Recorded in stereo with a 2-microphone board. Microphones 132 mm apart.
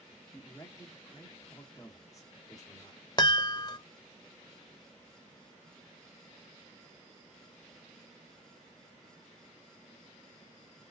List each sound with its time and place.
0.3 s a man speaking: 25° left (ahead or behind), 1.2 m
3.2 s a chime: 35° left (ahead or behind), 0.5 m